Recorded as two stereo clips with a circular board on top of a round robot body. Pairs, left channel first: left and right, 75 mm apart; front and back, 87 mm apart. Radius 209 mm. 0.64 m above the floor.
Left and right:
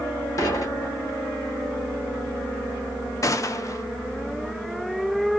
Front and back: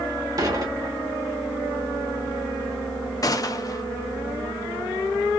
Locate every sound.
0.4 s dishes clattering: 130° left, 1.1 m
3.2 s a gunshot: 45° left, 0.6 m